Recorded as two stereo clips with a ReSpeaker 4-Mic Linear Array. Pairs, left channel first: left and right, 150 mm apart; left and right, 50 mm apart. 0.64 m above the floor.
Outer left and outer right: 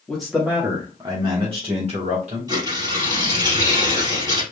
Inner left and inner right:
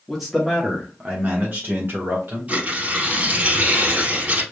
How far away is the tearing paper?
About 2.5 m.